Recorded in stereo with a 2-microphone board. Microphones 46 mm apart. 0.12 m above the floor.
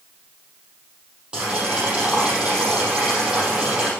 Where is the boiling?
20° right (ahead or behind), 5 m.